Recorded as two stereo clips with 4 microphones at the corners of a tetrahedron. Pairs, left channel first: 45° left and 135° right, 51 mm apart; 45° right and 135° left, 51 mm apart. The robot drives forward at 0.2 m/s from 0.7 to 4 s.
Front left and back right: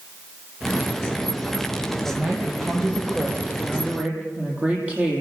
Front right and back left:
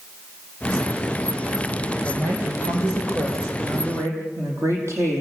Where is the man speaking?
160° left, 8 m.